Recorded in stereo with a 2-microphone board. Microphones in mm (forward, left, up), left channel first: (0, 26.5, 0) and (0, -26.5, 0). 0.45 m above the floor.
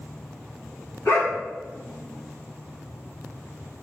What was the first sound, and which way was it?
A dog barking, 45° left (ahead or behind).